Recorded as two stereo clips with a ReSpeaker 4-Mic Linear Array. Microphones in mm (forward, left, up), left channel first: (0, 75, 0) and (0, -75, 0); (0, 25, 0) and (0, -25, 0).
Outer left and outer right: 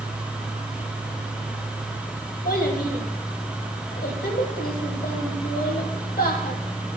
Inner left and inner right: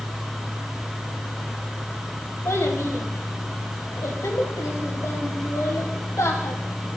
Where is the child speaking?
80° left, 3 m.